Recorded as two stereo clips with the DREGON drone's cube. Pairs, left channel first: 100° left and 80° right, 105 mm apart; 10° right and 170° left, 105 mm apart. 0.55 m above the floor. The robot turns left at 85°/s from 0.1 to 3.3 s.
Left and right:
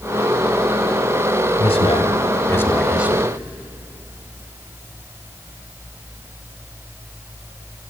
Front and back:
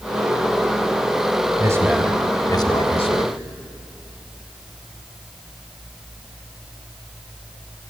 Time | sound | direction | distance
1.6 | a man speaking | 120° left | 3 m